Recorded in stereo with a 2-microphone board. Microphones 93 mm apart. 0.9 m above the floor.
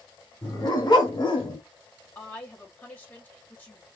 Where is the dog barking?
45° left (ahead or behind), 2 m; by 1.6 s 60° left (ahead or behind), 1.5 m.